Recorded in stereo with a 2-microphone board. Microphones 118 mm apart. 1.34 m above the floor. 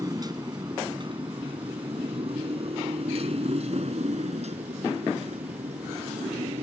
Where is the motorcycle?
30° right (ahead or behind); by 6.6 s 75° right (ahead or behind).